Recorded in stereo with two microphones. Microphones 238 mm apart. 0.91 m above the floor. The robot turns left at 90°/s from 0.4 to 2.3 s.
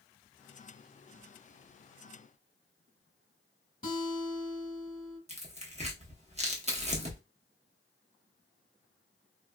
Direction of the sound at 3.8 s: 35° left (ahead or behind).